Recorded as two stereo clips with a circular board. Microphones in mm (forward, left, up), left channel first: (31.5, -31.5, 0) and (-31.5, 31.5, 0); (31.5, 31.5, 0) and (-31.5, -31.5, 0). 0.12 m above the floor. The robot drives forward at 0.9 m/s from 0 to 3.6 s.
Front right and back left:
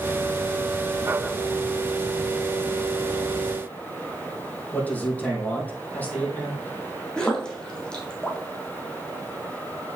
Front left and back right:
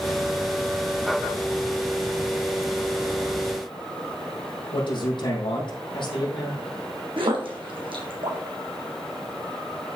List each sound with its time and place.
4.7 s a man speaking: 25° left, 4.5 m
7.2 s a splash: 125° right, 2 m